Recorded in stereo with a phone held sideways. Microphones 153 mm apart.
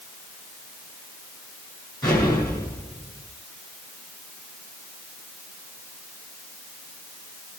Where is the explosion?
25° left (ahead or behind), 9.5 m.